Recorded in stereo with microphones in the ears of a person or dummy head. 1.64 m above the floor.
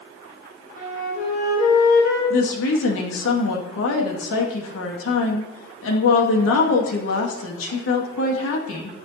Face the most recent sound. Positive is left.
turn(degrees=80)